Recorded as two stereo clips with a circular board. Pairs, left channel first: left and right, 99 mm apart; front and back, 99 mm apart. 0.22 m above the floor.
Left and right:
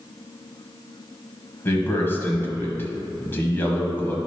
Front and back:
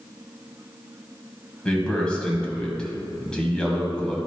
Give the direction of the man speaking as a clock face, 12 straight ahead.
10 o'clock.